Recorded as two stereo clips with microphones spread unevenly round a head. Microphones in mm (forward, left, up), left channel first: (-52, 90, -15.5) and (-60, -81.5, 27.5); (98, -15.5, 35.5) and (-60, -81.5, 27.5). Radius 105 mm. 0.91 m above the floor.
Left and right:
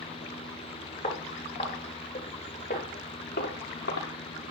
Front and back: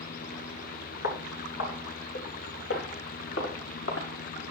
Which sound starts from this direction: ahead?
Footsteps, at 1.0 s.